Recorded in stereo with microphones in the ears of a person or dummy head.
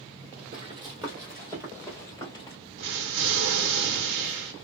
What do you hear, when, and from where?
0.5 s running footsteps: 15° right (ahead or behind), 1.3 m; by 2.6 s 20° left (ahead or behind), 1.7 m
2.8 s an explosion: 70° right (ahead or behind), 0.9 m